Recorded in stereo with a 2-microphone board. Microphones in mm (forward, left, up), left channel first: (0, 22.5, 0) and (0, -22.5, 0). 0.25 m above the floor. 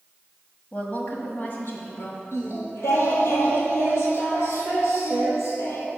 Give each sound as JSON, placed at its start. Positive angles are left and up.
{"t": 0.7, "sound": "a woman speaking", "side_deg": 30, "distance_m": 1.1}
{"t": 2.3, "sound": "singing", "side_deg": 75, "distance_m": 1.5}